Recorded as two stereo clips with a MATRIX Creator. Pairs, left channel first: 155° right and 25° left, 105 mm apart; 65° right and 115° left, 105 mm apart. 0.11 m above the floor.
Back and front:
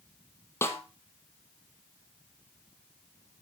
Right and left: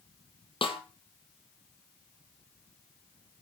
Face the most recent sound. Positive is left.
turn(degrees=-95)